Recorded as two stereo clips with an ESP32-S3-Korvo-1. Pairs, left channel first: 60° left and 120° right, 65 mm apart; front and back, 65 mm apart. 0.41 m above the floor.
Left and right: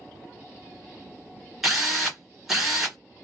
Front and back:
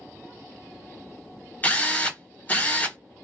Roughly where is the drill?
Ahead right.